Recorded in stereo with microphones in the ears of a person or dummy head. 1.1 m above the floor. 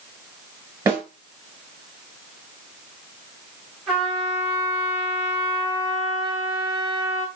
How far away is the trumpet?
About 5.5 m.